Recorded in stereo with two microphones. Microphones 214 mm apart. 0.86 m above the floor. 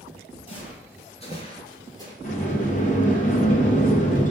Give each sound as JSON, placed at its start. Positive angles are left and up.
{"t": 0.5, "sound": "footsteps", "side_deg": 25, "distance_m": 1.3}
{"t": 2.2, "sound": "a sliding door", "side_deg": 35, "distance_m": 0.7}